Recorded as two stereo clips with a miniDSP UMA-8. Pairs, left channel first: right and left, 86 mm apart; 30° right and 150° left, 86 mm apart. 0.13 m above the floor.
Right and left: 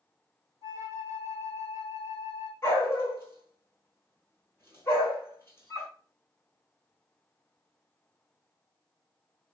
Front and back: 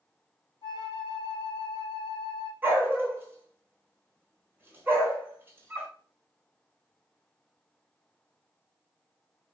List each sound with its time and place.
0.6 s a flute: 125° left, 1.0 m
2.6 s a dog barking: 145° right, 1.0 m